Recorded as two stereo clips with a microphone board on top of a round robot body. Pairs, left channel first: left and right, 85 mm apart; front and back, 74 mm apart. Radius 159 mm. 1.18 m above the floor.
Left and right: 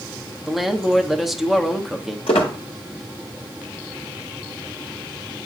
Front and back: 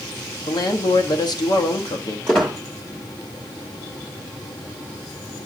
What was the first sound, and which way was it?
A woman speaking, straight ahead.